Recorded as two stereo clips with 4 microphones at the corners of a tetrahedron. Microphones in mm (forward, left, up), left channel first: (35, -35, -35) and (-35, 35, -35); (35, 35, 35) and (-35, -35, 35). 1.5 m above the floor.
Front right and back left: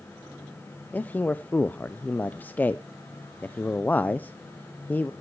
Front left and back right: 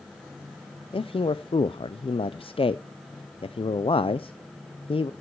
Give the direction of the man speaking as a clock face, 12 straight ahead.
11 o'clock.